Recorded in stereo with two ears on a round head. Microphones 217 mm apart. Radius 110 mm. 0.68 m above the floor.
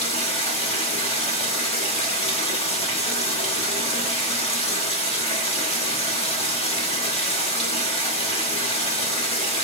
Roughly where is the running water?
Left.